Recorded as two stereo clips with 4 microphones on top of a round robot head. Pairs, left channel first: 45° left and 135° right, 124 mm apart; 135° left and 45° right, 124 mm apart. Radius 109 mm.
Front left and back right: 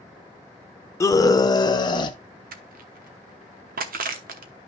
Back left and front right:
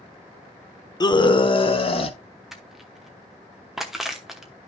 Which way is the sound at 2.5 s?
135° right.